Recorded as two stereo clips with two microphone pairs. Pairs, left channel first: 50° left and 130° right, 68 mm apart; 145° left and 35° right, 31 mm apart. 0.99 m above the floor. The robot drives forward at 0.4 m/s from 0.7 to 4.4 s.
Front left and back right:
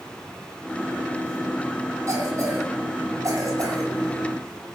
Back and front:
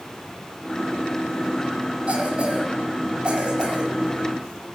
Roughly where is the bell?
No bell in this recording.